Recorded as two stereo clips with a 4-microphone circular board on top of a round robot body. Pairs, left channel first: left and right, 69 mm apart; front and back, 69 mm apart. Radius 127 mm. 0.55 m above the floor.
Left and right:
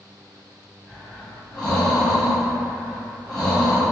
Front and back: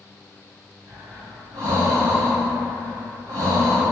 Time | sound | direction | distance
0.9 | breathing | 175° left | 1.6 m